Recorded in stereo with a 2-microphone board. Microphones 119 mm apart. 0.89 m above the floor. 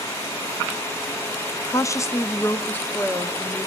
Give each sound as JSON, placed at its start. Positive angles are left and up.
{"t": 1.7, "sound": "a woman speaking", "side_deg": 25, "distance_m": 0.6}